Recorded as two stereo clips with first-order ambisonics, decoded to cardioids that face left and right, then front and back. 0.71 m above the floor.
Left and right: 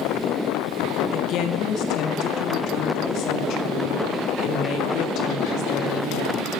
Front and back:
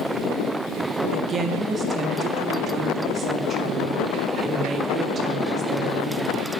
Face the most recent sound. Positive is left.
turn(degrees=115)